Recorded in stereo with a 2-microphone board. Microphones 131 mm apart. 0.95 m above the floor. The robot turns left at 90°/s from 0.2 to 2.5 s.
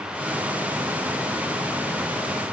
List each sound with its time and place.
Only background noise.